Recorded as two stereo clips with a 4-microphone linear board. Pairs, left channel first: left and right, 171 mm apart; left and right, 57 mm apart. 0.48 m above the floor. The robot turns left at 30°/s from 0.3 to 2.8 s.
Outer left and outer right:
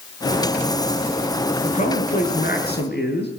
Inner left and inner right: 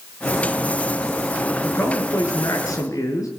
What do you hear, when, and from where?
1.6 s a man speaking: 135° left, 5.5 m; by 3.3 s 100° left, 5.5 m